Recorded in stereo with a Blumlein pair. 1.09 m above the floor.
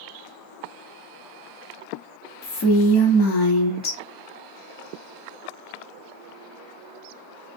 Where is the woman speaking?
35° left, 0.6 m.